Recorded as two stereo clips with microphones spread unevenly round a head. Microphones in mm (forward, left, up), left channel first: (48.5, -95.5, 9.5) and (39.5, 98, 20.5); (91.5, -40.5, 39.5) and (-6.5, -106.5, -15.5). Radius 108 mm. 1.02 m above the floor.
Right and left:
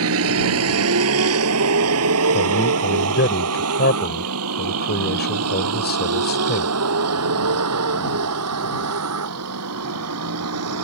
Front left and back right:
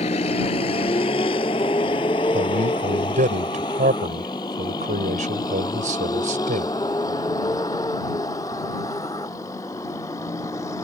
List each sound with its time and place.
0.0 s a vehicle: 90° left; by 10.8 s 110° left
2.3 s a man speaking: 135° right